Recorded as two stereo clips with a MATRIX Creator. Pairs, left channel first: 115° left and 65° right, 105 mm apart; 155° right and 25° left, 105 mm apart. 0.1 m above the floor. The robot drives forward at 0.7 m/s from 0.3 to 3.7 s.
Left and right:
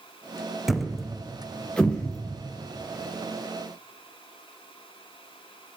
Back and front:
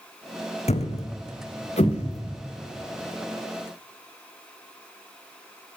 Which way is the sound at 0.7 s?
155° right.